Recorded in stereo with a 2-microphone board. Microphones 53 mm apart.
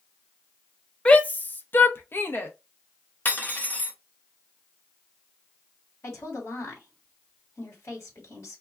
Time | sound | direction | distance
1.1 | a shout | 20° left (ahead or behind) | 0.5 m
3.2 | cutlery clinking | 35° left (ahead or behind) | 0.7 m
6.0 | a woman speaking | 55° left (ahead or behind) | 1.7 m